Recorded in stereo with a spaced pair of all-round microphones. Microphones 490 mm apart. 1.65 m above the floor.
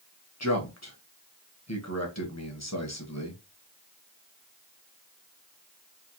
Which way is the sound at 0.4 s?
30° left (ahead or behind).